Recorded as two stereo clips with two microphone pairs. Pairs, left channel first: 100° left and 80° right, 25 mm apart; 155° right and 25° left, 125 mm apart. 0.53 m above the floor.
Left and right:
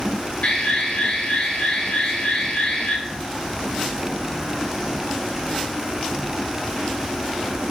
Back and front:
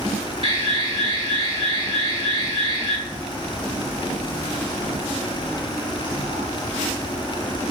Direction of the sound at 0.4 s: 70° left.